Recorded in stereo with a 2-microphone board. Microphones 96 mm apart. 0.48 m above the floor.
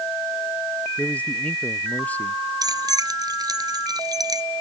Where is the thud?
No thud in this recording.